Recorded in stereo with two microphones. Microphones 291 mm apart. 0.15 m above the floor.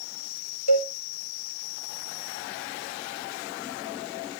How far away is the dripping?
I don't hear dripping.